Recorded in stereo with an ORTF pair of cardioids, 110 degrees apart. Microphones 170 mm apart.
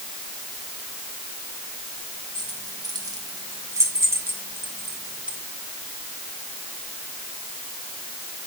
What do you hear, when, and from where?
2.4 s keys jangling: 25° right, 5 m; by 5.4 s 5° right, 4.5 m